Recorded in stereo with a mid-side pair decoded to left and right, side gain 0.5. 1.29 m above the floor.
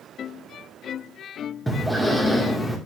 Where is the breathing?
5° left, 2 m.